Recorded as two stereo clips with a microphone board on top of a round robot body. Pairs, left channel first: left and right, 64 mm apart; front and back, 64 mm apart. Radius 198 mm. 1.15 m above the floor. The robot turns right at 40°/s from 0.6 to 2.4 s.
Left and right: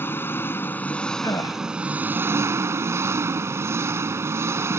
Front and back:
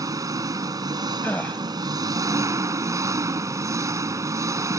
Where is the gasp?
60° left; by 1.6 s 75° left.